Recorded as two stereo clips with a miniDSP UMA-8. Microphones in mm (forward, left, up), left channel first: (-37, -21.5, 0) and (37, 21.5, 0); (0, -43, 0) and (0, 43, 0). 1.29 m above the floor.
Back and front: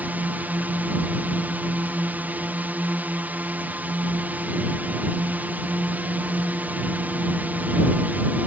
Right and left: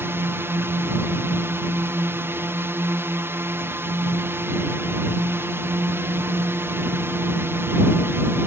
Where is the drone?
75° left.